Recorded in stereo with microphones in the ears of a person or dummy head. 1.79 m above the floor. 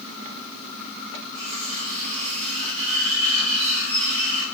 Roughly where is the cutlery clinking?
Right.